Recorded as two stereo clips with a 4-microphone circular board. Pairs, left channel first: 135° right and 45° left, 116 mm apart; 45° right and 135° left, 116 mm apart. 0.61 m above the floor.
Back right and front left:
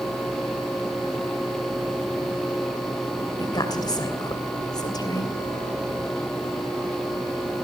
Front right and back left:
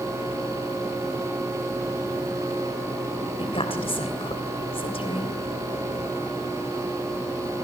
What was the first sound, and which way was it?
A woman speaking, 80° right.